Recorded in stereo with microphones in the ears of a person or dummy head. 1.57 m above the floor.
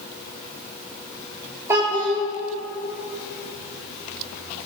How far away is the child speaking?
About 2.5 m.